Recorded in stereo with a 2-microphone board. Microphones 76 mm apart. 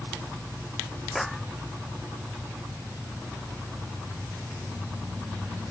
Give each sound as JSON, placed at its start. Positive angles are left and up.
{"t": 1.1, "sound": "a clap", "side_deg": 0}